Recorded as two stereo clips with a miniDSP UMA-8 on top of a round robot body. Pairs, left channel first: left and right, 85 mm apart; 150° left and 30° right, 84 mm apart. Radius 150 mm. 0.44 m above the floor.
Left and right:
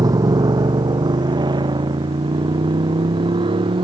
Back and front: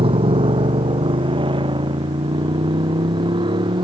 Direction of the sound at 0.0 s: 45° right.